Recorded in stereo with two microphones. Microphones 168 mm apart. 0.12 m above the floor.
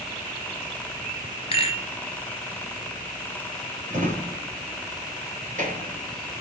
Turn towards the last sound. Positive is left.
turn(degrees=-50)  # may be behind; listen again after turning